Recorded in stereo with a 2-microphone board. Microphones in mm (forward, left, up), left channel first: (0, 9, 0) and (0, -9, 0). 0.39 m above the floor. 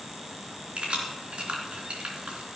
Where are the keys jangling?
70° right (ahead or behind), 3 m.